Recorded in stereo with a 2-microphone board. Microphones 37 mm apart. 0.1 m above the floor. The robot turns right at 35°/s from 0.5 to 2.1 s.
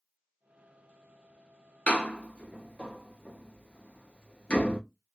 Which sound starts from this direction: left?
A door slam, at 1.9 s.